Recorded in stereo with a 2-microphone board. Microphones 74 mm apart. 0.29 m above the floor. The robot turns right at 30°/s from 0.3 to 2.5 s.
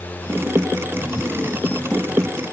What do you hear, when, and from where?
Only background noise.